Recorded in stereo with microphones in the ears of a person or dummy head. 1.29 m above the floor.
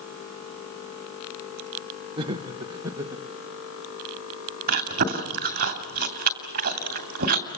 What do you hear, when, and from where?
2.2 s laughter: 30° right (ahead or behind), 0.7 m; by 3.2 s 20° right (ahead or behind), 2 m
4.7 s chewing: 50° right (ahead or behind), 2.5 m